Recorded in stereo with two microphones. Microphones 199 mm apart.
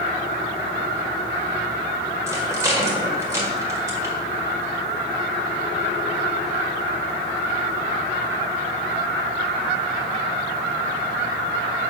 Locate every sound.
2.3 s a rattle: 15° right (ahead or behind), 1.7 m